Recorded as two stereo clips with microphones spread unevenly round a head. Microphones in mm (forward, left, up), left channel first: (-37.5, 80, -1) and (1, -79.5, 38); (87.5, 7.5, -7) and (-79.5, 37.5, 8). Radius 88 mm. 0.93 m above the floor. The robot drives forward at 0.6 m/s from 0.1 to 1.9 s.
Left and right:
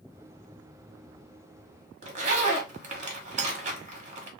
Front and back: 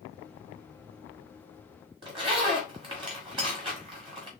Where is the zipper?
125° right, 1.3 m.